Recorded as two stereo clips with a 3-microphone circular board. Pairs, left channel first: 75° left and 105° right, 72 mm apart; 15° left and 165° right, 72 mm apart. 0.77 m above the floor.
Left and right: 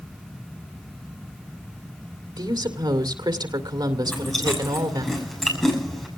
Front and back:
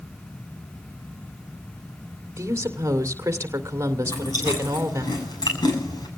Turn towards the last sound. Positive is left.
turn(degrees=-10)